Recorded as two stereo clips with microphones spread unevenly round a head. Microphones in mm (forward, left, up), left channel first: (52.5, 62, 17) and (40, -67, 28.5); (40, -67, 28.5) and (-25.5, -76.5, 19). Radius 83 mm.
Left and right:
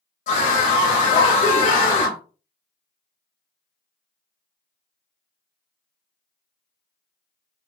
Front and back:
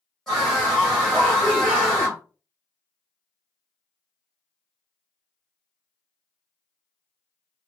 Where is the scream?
95° left, 0.7 m.